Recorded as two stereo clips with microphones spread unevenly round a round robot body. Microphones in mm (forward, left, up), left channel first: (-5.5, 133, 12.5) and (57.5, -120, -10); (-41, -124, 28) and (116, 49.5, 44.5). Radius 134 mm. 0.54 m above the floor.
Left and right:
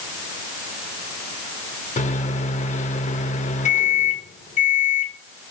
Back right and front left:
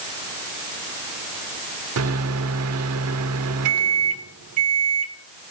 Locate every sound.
2.0 s a microwave: 40° left, 1.3 m